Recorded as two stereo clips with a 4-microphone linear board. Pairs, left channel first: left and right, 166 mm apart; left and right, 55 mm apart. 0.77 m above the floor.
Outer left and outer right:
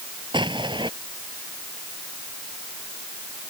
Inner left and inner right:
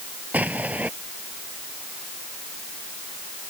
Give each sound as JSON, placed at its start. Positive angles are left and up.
{"t": 0.3, "sound": "an explosion", "side_deg": -30}